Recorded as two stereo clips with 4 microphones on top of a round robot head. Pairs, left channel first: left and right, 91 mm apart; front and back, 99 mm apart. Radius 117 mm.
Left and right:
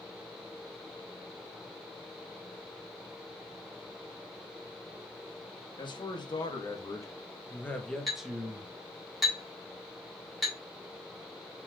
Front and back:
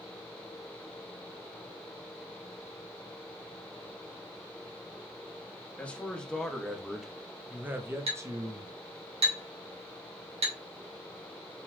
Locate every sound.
5.8 s a man speaking: 75° left, 1.6 m; by 8.7 s 150° right, 1.1 m
8.1 s a clink: straight behind, 2 m